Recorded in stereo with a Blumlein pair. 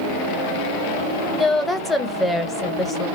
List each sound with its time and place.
1.3 s a woman speaking: 5° left, 0.8 m